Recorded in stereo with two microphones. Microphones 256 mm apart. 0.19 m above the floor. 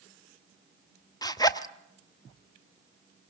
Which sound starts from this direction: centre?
A zipper, at 1.2 s.